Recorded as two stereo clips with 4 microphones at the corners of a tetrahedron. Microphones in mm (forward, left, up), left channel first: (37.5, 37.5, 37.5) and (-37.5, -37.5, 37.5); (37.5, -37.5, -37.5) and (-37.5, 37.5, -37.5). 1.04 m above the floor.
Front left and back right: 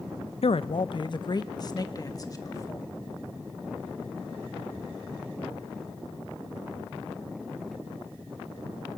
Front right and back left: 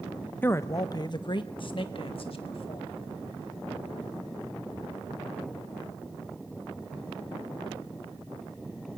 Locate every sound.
0.4 s a man speaking: 25° left, 0.5 m; by 2.9 s 15° right, 2.0 m